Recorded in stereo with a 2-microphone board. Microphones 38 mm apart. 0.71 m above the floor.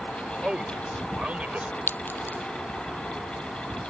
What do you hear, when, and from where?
0.4 s a man speaking: 25° right (ahead or behind); by 1.8 s 40° right (ahead or behind)
1.9 s a clink: 65° left (ahead or behind)